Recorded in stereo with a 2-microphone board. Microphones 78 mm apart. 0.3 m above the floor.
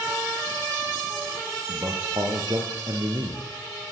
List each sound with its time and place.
1.7 s a man speaking: 55° right (ahead or behind), 5.5 m; by 3.4 s 65° right (ahead or behind), 6 m